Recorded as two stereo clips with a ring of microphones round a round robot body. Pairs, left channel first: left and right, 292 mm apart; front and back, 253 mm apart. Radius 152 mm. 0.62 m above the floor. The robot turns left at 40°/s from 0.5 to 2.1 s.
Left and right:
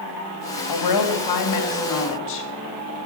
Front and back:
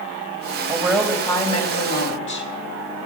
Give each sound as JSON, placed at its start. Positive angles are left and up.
{"t": 0.7, "sound": "a woman speaking", "azimuth_deg": 100, "distance_m": 3.0}